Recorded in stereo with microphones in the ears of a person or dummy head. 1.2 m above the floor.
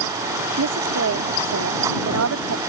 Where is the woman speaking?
85° right.